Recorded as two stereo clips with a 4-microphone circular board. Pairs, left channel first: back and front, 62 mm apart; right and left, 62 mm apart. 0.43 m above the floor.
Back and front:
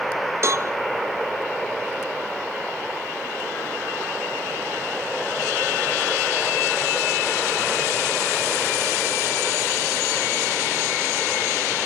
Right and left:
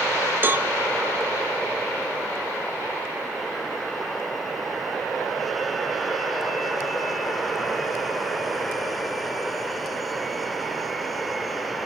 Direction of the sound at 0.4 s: 35° left.